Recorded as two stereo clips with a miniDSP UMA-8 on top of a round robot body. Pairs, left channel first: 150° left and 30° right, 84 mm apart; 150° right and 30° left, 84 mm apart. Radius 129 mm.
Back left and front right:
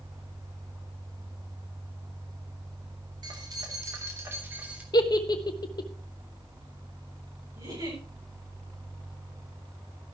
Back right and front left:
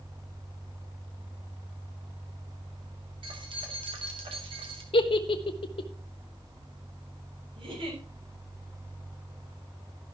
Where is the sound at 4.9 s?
170° right, 1.4 m.